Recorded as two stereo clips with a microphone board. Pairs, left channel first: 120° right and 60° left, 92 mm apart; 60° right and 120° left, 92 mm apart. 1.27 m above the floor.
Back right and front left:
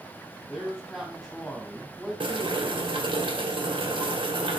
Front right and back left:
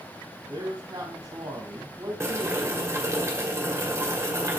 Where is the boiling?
60° left, 2 m.